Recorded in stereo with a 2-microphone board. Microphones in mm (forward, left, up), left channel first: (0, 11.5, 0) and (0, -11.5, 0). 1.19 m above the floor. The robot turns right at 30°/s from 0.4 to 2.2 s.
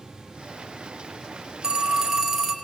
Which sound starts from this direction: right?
A phone ringing, at 1.6 s.